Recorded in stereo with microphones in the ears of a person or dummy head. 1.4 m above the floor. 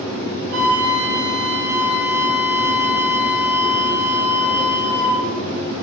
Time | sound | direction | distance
0.5 | a flute | 55° right (ahead or behind) | 0.5 m